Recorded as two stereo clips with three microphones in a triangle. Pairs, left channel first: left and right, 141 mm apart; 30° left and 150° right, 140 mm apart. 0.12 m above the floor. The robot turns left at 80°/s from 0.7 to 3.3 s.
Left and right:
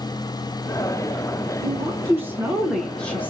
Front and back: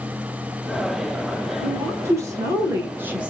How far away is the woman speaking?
About 1.1 m.